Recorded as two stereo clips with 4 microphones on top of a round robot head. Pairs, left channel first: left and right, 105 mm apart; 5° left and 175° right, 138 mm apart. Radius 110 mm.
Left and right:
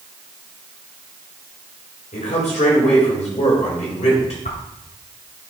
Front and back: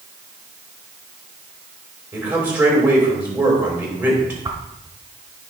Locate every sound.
2.1 s a man speaking: 105° left, 3.5 m
4.5 s a whoosh: 120° left, 1.3 m